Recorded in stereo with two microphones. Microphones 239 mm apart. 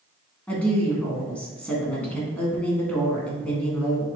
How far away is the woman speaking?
About 1.5 m.